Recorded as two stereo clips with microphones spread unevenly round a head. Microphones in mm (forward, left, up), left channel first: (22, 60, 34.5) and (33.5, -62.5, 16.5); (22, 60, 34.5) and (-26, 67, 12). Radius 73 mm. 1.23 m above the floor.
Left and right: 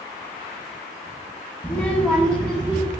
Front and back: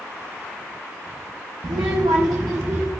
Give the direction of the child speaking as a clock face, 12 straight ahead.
6 o'clock.